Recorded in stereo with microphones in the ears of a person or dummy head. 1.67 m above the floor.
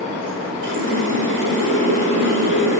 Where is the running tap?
65° right (ahead or behind), 5 m.